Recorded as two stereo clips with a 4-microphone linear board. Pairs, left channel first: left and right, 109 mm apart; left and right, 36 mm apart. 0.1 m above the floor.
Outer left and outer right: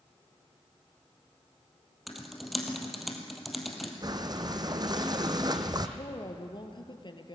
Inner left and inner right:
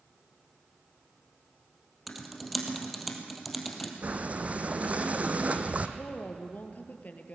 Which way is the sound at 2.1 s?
Centre (ahead or behind).